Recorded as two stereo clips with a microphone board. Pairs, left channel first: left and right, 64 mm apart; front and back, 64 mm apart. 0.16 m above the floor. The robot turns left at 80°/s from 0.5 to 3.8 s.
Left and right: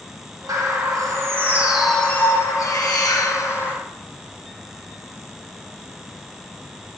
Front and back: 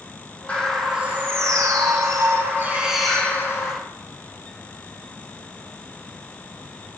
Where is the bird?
70° right, 4 m; by 3.8 s 30° left, 4 m.